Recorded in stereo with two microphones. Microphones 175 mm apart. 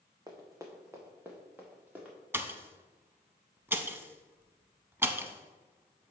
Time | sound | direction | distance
0.3 | running footsteps | 20° right (ahead or behind) | 1.2 m
2.3 | a pop | 10° right (ahead or behind) | 0.5 m